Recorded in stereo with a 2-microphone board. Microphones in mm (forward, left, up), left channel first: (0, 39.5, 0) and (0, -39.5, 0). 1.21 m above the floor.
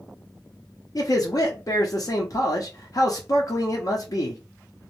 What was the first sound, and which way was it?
A man speaking, 50° left (ahead or behind).